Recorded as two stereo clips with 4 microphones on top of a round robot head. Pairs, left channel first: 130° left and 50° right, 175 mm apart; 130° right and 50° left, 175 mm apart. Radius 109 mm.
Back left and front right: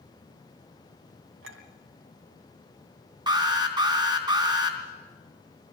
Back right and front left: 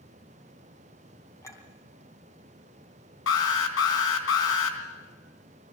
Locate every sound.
1.4 s a clink: 55° right, 3 m
3.3 s an alarm: 115° right, 3 m